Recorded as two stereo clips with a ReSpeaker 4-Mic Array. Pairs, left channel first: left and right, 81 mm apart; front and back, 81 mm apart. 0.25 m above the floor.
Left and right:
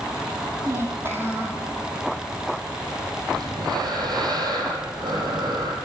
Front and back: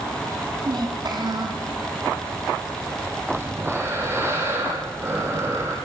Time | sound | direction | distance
0.7 | a child speaking | 150° right | 5 m
3.3 | breathing | 120° right | 6 m